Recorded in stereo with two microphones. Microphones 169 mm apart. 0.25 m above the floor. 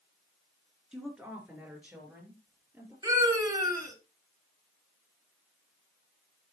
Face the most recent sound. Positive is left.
turn(degrees=-20)  # may be behind; listen again after turning